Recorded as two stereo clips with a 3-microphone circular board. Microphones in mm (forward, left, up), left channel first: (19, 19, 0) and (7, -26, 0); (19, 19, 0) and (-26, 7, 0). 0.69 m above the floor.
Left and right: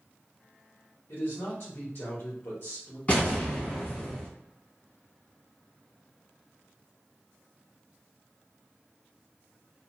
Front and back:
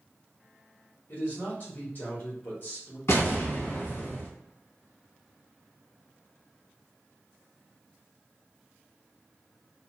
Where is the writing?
I don't hear writing.